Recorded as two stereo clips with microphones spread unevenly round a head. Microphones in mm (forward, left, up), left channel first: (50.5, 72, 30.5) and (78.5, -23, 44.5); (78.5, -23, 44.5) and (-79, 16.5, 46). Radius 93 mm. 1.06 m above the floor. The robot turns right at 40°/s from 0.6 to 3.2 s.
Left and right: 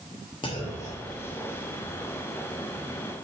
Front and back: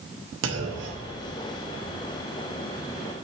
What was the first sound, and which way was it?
A clunk, 170° left.